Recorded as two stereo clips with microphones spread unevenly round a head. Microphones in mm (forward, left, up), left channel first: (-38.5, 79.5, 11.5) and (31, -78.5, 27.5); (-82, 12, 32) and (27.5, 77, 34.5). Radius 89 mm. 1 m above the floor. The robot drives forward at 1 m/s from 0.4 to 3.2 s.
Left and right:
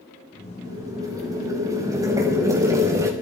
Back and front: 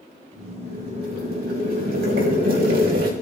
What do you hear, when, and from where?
0.6 s boiling: 5° left, 7.5 m